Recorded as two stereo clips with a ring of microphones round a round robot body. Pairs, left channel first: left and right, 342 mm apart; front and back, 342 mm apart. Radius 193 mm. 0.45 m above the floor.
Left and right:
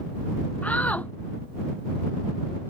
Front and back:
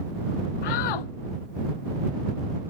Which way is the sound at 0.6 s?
5° left.